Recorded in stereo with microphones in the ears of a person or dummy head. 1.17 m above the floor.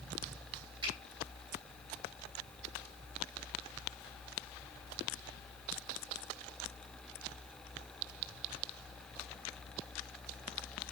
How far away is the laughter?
No laughter in this recording.